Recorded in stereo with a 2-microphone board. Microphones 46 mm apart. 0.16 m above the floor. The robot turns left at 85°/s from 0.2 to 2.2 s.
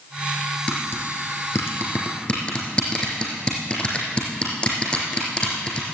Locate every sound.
0.7 s tapping: 30° left (ahead or behind), 3.5 m; by 5.8 s 20° left (ahead or behind), 3.5 m